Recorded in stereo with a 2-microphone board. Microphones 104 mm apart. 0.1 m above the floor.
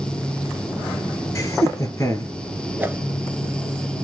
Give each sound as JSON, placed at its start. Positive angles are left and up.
{"t": 1.4, "sound": "laughter", "side_deg": 30, "distance_m": 2.0}
{"t": 2.8, "sound": "a whoosh", "side_deg": -15, "distance_m": 0.5}